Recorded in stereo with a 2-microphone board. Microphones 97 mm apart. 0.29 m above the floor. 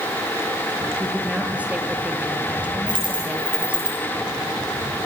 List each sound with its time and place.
1.0 s a woman speaking: 15° right (ahead or behind), 6 m
2.9 s a dropped coin: 50° right (ahead or behind), 8.5 m